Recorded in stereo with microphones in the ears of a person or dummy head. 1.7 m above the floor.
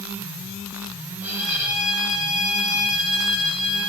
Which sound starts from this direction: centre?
A violin, at 1.2 s.